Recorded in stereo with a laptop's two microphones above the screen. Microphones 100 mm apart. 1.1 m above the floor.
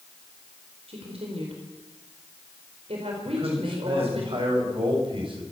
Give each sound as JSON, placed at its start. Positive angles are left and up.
{"t": 0.9, "sound": "a woman speaking", "side_deg": -85, "distance_m": 4.5}
{"t": 3.2, "sound": "a man speaking", "side_deg": -60, "distance_m": 6.5}